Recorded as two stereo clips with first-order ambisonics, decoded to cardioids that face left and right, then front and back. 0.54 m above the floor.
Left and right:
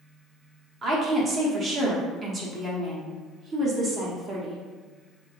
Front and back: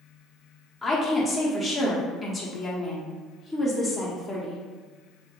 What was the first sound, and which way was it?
A woman speaking, 85° right.